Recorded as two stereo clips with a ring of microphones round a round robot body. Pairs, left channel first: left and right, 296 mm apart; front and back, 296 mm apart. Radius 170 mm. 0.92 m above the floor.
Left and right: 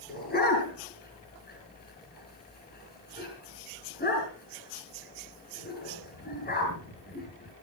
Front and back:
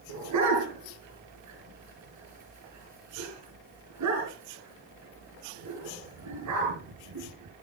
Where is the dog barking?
150° left, 8.5 m.